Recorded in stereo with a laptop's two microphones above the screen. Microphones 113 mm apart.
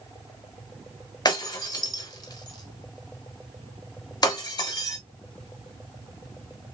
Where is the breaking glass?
35° left (ahead or behind), 0.8 m.